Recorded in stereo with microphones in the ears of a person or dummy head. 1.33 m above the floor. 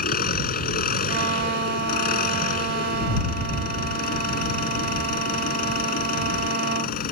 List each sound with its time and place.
0.0 s an engine running: 45° left (ahead or behind)
1.1 s a violin: 45° right (ahead or behind)